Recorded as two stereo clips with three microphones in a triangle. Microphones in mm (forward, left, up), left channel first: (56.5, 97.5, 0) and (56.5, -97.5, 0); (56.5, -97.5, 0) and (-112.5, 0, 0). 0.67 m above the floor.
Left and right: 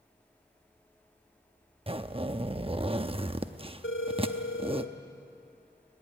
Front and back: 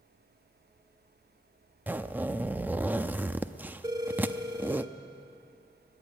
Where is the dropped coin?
No dropped coin in this recording.